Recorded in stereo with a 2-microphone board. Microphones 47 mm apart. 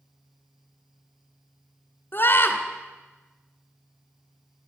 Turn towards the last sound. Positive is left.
turn(degrees=45)  # may be behind; listen again after turning